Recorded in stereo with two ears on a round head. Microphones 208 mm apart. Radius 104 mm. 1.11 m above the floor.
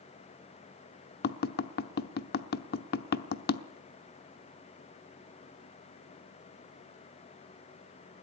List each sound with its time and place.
1.2 s tapping: 40° left (ahead or behind), 0.9 m